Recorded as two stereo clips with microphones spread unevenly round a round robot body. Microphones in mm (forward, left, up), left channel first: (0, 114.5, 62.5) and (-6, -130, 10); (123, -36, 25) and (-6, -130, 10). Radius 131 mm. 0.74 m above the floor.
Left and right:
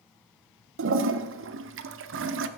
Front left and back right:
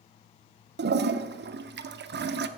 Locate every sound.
0.8 s a toilet flushing: 130° right, 0.7 m